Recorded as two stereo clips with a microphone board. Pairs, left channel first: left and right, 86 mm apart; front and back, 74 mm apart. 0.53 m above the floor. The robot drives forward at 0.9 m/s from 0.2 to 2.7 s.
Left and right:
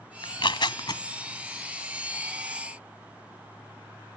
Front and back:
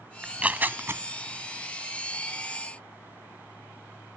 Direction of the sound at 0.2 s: 100° left.